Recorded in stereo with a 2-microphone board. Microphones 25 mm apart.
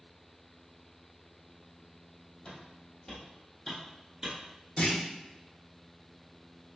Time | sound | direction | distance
2.5 | footsteps | 50° left (ahead or behind) | 1.5 m
4.8 | a clunk | 50° left (ahead or behind) | 0.7 m